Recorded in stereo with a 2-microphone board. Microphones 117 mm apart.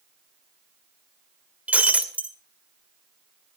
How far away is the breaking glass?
About 1.8 m.